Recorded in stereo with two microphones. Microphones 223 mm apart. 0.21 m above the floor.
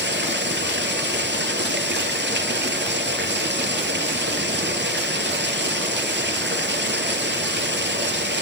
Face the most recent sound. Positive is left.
turn(degrees=-55)  # may be behind; listen again after turning